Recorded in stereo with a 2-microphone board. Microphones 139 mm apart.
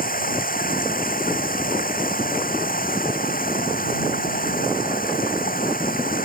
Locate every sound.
0.0 s running water: 75° left (ahead or behind)